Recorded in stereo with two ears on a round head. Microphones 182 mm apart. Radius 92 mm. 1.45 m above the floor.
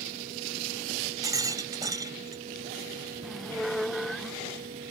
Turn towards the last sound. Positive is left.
turn(degrees=0)  # may be behind; listen again after turning